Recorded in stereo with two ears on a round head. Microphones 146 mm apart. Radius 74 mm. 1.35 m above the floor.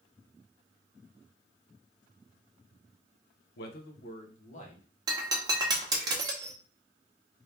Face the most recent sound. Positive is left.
turn(degrees=-25)  # may be behind; listen again after turning